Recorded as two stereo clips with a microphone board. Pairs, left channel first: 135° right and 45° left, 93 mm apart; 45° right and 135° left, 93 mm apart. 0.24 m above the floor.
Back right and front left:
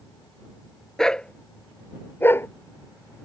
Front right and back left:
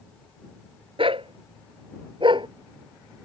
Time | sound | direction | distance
1.0 | a dog barking | 140° left | ?